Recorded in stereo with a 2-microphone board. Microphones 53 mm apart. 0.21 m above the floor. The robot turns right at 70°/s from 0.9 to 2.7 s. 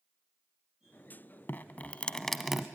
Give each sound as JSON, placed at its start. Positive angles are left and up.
{"t": 1.5, "sound": "dripping", "azimuth_deg": 115, "distance_m": 0.8}